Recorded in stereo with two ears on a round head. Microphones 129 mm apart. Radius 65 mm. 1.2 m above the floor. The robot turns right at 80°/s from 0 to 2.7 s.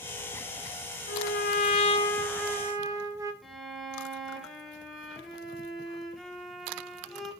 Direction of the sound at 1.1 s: 75° left.